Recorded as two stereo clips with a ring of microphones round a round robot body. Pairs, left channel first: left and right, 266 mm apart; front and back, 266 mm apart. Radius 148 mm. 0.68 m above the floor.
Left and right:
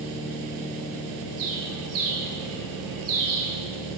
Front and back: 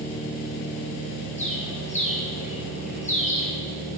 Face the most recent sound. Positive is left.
turn(degrees=-65)